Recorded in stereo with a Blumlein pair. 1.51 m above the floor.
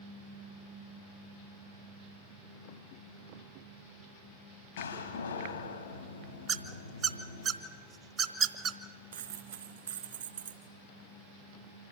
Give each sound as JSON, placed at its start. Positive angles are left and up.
{"t": 4.8, "sound": "a door slam", "azimuth_deg": 70, "distance_m": 2.5}
{"t": 6.5, "sound": "a squeak", "azimuth_deg": -25, "distance_m": 1.2}
{"t": 9.1, "sound": "a dropped coin", "azimuth_deg": -65, "distance_m": 3.0}